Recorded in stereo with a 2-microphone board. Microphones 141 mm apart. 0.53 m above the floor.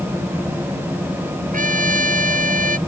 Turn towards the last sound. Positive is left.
turn(degrees=-75)  # may be behind; listen again after turning